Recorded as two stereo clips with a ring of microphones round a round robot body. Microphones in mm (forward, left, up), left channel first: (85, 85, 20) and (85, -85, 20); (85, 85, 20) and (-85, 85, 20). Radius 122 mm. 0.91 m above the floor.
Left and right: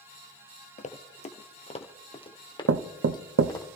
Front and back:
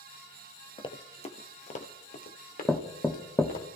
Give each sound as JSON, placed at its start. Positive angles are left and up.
{"t": 0.8, "sound": "running footsteps", "azimuth_deg": 60, "distance_m": 1.4}
{"t": 2.7, "sound": "knocking", "azimuth_deg": -85, "distance_m": 0.7}